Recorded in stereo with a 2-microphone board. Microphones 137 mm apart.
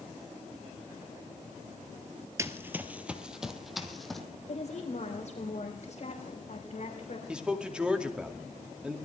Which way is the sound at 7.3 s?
5° right (ahead or behind).